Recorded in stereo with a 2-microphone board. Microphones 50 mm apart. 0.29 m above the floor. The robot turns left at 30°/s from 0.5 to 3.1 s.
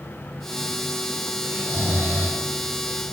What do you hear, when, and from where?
1.5 s snoring: 60° right (ahead or behind), 3.5 m; by 2.4 s 65° right (ahead or behind), 3.5 m